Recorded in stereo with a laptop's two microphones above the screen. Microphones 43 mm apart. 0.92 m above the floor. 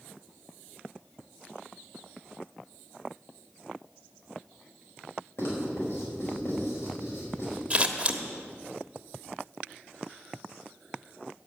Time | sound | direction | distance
5.4 | writing | 65° left (ahead or behind) | 5 m
7.7 | scissors | 25° right (ahead or behind) | 1.2 m